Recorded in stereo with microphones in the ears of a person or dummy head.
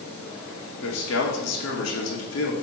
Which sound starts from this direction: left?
A man speaking, at 0.8 s.